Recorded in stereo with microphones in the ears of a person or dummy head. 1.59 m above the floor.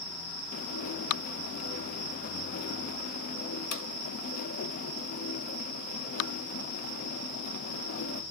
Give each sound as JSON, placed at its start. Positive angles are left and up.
{"t": 0.5, "sound": "dishes clattering", "side_deg": 45, "distance_m": 1.0}